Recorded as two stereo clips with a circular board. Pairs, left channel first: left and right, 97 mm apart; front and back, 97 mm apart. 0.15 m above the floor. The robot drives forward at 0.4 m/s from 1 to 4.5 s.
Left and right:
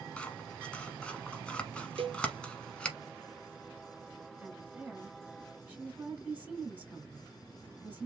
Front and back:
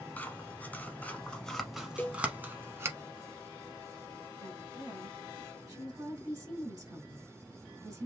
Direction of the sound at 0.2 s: 35° left.